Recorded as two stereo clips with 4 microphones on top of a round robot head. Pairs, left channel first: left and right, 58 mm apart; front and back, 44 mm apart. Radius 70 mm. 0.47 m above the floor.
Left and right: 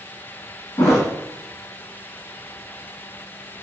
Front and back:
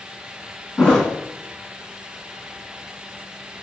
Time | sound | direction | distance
0.8 | a thud | 80° left | 1.7 m